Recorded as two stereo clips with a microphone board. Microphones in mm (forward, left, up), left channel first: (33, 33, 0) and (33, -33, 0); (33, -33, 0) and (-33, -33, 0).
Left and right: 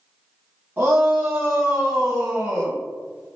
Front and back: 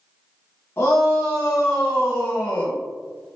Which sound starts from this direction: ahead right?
A shout, at 0.8 s.